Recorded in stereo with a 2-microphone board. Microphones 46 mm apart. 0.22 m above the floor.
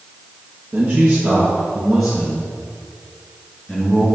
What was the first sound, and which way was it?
A man speaking, 30° right (ahead or behind).